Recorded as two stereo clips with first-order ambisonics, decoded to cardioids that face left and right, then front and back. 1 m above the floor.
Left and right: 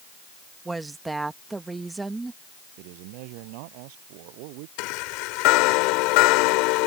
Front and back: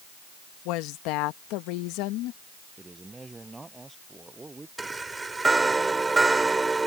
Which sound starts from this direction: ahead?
A woman speaking, at 0.7 s.